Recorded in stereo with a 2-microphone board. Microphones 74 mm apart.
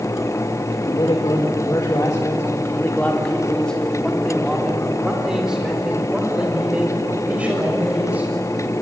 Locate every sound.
0.7 s a man speaking: 85° left, 2.5 m; by 8.3 s 20° right (ahead or behind), 7.5 m